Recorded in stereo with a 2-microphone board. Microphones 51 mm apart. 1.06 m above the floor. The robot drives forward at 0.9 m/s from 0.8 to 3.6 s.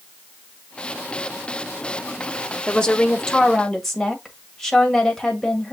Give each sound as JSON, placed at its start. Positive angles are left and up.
{"t": 2.7, "sound": "a woman speaking", "side_deg": 20, "distance_m": 0.6}